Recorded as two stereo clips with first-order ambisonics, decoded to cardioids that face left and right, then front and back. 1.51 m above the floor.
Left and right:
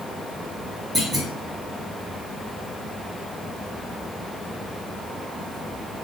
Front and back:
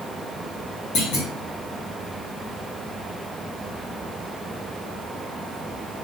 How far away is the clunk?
About 1.3 m.